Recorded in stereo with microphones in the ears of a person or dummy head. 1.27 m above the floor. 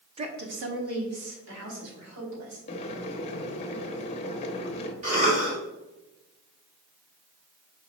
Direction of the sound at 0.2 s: 25° right (ahead or behind).